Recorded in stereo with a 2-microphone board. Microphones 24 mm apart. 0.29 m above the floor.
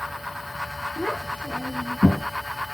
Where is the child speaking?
50° left (ahead or behind), 1.5 m; by 2.3 s 70° left (ahead or behind), 3 m.